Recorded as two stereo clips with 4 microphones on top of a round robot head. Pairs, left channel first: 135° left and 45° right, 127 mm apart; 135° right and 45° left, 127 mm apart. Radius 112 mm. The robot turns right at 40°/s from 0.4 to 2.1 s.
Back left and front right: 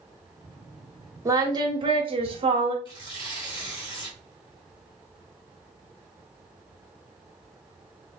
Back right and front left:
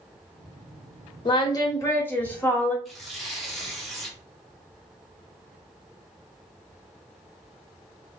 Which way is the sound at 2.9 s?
135° left.